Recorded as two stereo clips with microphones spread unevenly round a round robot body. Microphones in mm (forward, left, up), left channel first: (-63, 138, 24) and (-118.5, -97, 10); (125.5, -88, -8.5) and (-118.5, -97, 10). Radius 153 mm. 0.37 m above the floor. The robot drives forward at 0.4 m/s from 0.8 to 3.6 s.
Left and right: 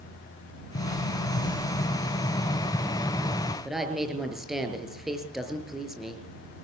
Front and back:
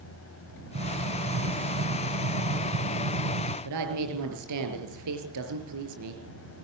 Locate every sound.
0.8 s an explosion: 125° left, 1.0 m; by 3.5 s 155° left, 1.9 m
3.6 s a woman speaking: 170° left, 6.5 m